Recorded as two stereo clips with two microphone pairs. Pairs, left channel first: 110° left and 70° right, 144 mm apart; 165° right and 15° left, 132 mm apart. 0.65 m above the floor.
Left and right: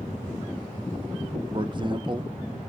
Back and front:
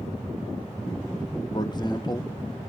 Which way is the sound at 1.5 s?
115° right.